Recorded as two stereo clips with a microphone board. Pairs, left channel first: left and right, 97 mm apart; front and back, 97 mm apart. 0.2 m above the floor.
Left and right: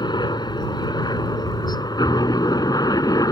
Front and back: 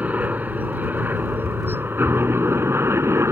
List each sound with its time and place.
0.0 s a helicopter: 110° left; by 3.3 s 125° left